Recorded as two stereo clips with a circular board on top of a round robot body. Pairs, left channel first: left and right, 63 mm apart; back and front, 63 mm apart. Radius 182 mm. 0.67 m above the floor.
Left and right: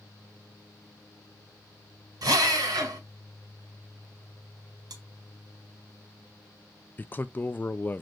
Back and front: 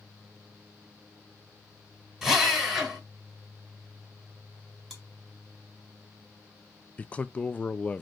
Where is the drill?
85° right, 2.5 m.